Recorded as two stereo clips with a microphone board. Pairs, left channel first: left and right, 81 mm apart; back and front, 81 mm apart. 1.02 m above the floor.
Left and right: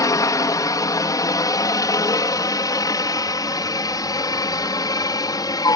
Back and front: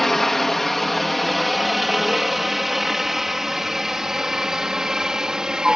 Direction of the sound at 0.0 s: 95° left.